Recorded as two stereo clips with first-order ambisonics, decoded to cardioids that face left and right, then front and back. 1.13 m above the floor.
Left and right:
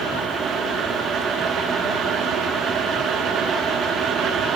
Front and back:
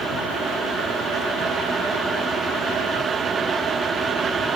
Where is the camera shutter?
I don't hear a camera shutter.